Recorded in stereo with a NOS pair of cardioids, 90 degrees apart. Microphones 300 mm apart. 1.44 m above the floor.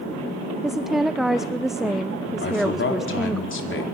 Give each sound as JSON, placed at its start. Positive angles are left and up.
{"t": 0.6, "sound": "a woman speaking", "azimuth_deg": 0, "distance_m": 0.5}
{"t": 2.4, "sound": "a man speaking", "azimuth_deg": 40, "distance_m": 4.0}